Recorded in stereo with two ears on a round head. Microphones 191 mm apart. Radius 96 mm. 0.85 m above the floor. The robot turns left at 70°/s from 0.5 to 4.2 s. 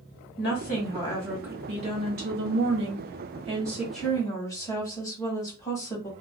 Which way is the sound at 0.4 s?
60° left.